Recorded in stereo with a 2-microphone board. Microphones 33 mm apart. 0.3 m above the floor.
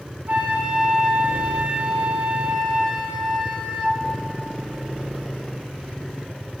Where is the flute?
60° right (ahead or behind), 1.1 m.